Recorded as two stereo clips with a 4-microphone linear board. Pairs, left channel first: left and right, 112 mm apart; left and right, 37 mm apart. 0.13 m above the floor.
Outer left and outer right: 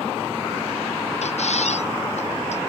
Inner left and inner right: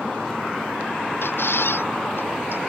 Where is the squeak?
75° left (ahead or behind).